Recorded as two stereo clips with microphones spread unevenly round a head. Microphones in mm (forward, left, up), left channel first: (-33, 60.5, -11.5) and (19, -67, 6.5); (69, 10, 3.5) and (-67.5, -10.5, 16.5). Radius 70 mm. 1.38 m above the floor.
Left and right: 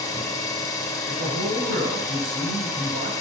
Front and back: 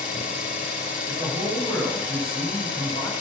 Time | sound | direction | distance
0.0 | an engine running | 45° left | 2.5 m
1.1 | a man speaking | 75° right | 7 m